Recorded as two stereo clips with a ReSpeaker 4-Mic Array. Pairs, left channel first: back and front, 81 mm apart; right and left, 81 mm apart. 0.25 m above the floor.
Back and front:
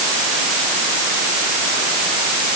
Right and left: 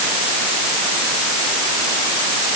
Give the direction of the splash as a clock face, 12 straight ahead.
I don't hear a splash.